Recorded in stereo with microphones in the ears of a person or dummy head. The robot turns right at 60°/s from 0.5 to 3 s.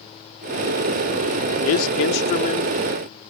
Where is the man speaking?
95° left; by 2.7 s 160° left.